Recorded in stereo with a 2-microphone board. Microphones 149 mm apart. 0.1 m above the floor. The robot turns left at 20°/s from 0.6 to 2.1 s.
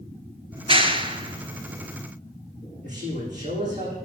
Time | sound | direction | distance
0.5 | a clap | 35° right (ahead or behind) | 1.1 m
2.8 | a man speaking | 50° right (ahead or behind) | 7 m